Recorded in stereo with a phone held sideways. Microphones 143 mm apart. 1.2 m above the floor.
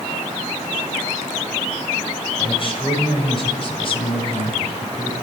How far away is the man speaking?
About 6.5 m.